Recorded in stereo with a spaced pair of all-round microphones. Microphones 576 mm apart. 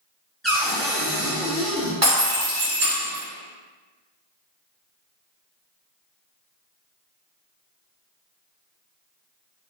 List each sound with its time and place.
0.4 s a cupboard door: centre (ahead or behind), 0.8 m
2.0 s breaking glass: 25° right (ahead or behind), 1.0 m